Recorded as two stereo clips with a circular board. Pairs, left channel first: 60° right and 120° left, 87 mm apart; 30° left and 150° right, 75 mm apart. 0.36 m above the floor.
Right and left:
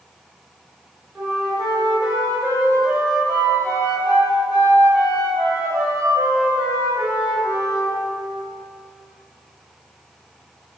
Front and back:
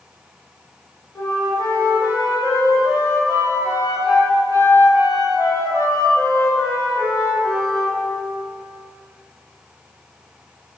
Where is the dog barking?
I don't hear a dog barking.